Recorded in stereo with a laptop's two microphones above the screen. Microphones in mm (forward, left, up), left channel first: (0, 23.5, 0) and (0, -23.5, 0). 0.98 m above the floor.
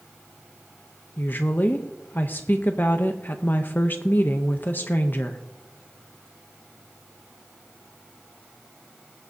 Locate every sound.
1.2 s a woman speaking: 45° left (ahead or behind), 0.6 m